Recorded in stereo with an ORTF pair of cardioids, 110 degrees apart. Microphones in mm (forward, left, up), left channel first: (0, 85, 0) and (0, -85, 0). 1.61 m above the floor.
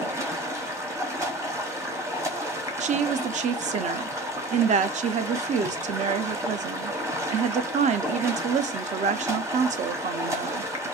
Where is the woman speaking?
45° right, 0.5 m.